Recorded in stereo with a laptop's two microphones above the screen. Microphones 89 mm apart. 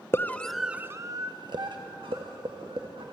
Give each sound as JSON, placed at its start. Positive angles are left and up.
{"t": 0.1, "sound": "a scream", "side_deg": 25, "distance_m": 0.8}